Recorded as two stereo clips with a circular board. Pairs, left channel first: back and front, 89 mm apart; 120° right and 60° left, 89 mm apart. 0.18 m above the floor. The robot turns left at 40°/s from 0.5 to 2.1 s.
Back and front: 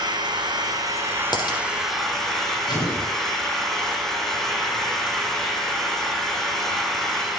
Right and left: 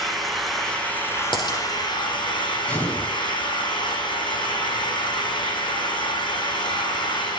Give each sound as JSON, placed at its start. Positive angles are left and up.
{"t": 0.0, "sound": "an engine running", "azimuth_deg": -30, "distance_m": 3.0}
{"t": 1.3, "sound": "a dropped coin", "azimuth_deg": -145, "distance_m": 3.5}
{"t": 2.7, "sound": "an explosion", "azimuth_deg": 165, "distance_m": 10.0}